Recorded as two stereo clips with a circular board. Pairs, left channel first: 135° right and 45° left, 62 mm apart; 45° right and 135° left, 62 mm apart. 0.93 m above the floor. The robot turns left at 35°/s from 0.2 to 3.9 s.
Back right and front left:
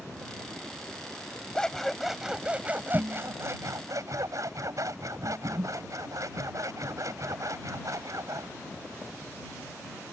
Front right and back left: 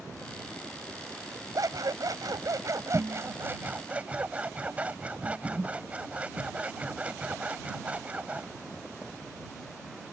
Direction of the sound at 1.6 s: 150° left.